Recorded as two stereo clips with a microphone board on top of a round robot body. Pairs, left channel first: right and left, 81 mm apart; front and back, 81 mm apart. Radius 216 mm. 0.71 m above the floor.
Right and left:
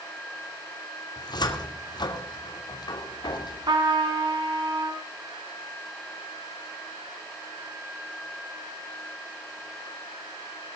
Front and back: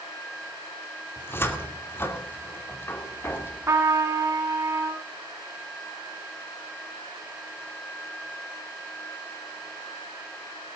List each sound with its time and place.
1.2 s a cupboard door: 60° right, 2.5 m
3.7 s a trumpet: 120° left, 2.5 m